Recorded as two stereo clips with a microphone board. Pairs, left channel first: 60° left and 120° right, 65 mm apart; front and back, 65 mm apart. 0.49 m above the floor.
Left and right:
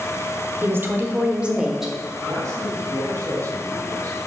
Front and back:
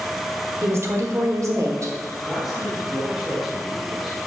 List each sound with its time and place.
0.6 s a woman speaking: 150° right, 1.3 m; by 1.9 s 155° left, 1.5 m
2.2 s a man speaking: 95° right, 2.5 m